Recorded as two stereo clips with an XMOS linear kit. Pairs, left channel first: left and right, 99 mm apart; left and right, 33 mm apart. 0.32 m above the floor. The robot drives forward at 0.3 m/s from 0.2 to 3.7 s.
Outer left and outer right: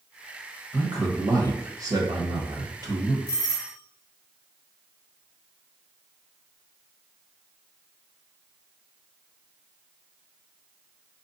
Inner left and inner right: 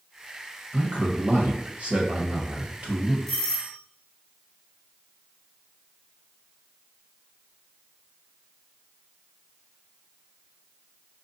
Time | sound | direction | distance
0.7 | a man speaking | 40° right (ahead or behind) | 1.3 m
3.3 | a doorbell | 10° left (ahead or behind) | 2 m